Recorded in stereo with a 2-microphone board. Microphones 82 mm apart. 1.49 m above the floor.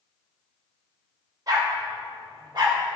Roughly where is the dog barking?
Right.